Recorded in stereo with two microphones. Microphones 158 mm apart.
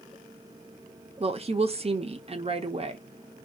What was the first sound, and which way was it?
A woman speaking, 40° right (ahead or behind).